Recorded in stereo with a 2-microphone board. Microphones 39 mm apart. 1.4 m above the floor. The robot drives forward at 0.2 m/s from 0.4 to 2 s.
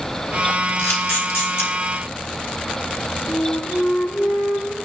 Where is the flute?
60° left (ahead or behind), 7.5 m.